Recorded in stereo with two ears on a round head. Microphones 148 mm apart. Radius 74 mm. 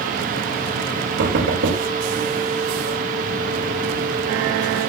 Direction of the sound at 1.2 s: 75° right (ahead or behind).